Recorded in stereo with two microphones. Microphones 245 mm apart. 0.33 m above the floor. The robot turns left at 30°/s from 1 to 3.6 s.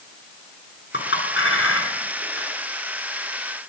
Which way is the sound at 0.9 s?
50° left (ahead or behind).